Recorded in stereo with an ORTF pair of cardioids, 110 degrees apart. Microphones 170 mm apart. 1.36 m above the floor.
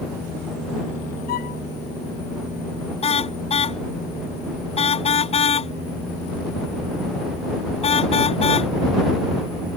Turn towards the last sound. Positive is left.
turn(degrees=35)